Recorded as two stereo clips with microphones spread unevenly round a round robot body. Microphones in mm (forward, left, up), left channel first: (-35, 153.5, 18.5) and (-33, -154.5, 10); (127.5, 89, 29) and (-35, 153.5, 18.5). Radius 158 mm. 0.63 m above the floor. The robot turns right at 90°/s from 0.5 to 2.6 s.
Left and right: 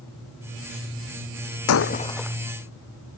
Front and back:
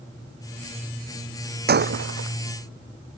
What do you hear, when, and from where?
1.7 s breaking glass: 130° left; by 2.4 s 170° right